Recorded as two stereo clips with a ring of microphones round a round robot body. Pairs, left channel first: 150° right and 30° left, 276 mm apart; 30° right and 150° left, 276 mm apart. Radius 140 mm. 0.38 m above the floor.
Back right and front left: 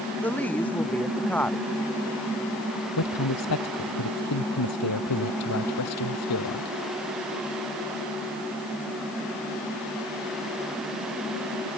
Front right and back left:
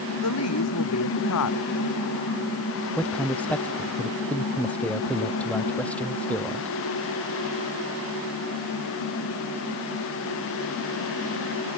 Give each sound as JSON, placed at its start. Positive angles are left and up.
{"t": 0.2, "sound": "a woman speaking", "azimuth_deg": -65}
{"t": 3.0, "sound": "a man speaking", "azimuth_deg": -115}